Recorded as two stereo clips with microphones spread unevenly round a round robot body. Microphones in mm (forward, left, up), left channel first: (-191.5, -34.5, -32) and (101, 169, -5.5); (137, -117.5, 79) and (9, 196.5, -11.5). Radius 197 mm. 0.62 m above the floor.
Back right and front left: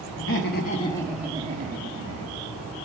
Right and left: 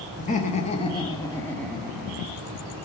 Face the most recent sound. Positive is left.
turn(degrees=50)